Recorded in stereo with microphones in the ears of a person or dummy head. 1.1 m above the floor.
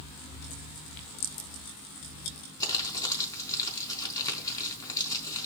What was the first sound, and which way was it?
Crumpling, 20° left (ahead or behind).